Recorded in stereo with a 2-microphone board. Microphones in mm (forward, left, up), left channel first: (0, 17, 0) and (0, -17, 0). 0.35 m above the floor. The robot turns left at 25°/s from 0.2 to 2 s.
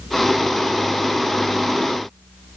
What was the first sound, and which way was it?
Only background noise.